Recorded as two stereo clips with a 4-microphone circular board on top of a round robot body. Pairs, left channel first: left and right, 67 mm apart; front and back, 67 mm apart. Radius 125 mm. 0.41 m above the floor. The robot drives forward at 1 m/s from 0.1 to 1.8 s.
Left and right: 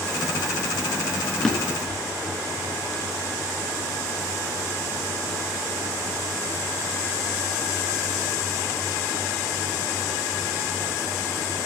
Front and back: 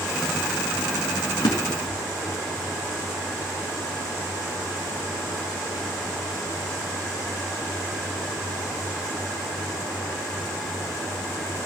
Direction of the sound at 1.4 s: 10° left.